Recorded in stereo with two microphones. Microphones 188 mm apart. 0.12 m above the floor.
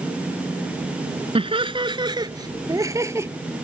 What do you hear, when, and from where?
1.4 s laughter: 30° right (ahead or behind); by 3.3 s 15° right (ahead or behind)